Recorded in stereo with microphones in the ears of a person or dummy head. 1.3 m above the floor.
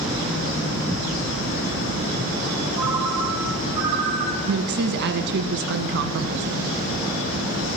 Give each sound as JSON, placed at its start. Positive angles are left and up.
{"t": 2.8, "sound": "a ringtone", "side_deg": -25, "distance_m": 4.0}
{"t": 4.5, "sound": "a woman speaking", "side_deg": -65, "distance_m": 1.3}